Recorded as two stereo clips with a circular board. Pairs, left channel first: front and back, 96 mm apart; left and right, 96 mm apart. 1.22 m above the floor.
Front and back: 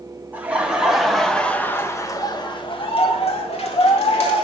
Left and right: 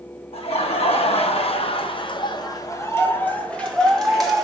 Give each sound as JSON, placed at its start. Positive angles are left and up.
{"t": 0.3, "sound": "laughter", "azimuth_deg": 105, "distance_m": 1.9}